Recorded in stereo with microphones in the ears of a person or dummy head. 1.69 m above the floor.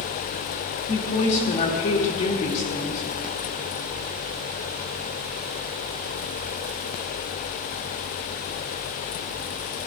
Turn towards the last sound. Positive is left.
turn(degrees=45)  # may be behind; listen again after turning